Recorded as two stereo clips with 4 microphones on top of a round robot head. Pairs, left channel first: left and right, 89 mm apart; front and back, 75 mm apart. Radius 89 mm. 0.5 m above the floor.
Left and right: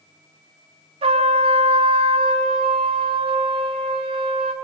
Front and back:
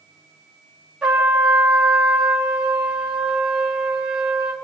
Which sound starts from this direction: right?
A trumpet, at 1.0 s.